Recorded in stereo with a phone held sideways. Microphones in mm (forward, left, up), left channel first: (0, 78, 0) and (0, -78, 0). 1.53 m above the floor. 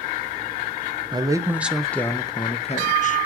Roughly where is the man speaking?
Right.